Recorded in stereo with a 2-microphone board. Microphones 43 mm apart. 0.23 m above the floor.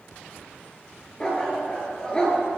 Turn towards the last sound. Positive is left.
turn(degrees=15)  # may be behind; listen again after turning